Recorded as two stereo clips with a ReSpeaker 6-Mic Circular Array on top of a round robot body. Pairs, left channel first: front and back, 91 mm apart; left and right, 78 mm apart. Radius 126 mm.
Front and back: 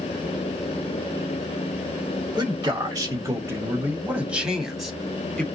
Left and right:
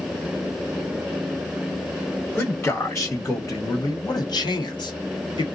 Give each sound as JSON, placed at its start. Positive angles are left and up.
{"t": 2.4, "sound": "a man speaking", "azimuth_deg": 160, "distance_m": 1.5}